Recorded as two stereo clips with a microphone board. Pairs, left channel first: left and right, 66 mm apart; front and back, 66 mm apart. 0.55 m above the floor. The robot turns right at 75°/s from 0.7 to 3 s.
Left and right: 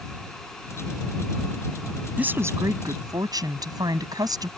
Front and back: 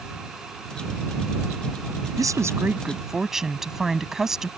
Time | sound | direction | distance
2.2 | a woman speaking | 160° right | ?